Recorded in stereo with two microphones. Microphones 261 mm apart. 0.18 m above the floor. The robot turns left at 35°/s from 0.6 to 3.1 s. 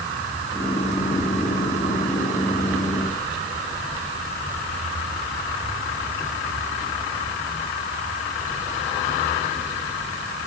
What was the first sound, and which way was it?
Only background noise.